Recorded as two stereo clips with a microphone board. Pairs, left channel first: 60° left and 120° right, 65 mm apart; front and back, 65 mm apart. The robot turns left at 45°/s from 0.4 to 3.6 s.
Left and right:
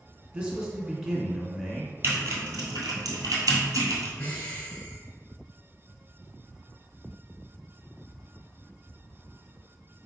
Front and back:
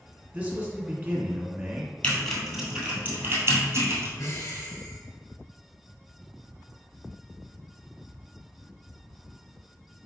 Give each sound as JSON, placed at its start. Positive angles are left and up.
{"t": 0.3, "sound": "a man speaking", "azimuth_deg": -165, "distance_m": 1.2}
{"t": 2.0, "sound": "typing on a keyboard", "azimuth_deg": -70, "distance_m": 1.7}
{"t": 4.2, "sound": "breathing", "azimuth_deg": 0, "distance_m": 1.1}